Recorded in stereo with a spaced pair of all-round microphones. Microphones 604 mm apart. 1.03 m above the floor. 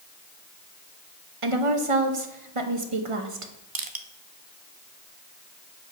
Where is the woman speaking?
55° right (ahead or behind), 1.1 m.